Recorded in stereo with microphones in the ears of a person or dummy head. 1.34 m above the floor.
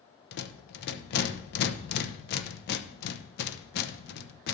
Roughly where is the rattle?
Left.